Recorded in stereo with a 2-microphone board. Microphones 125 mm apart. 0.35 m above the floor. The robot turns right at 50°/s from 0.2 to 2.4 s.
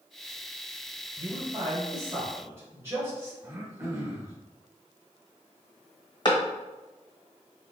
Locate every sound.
1.2 s a man speaking: 40° right (ahead or behind), 1.5 m; by 3.3 s 20° right (ahead or behind), 1.5 m
3.4 s throat clearing: 20° right (ahead or behind), 0.7 m
6.2 s a clap: 40° left (ahead or behind), 1.1 m